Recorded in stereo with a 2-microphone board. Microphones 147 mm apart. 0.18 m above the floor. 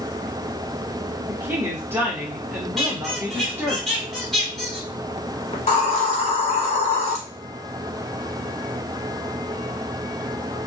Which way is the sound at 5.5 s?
50° left (ahead or behind).